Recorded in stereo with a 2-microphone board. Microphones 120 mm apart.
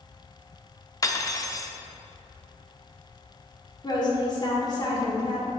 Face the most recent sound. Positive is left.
turn(degrees=35)  # may be behind; listen again after turning